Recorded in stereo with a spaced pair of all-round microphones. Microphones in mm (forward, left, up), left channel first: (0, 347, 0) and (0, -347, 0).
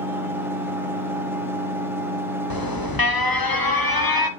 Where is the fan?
5° right (ahead or behind), 1.5 m.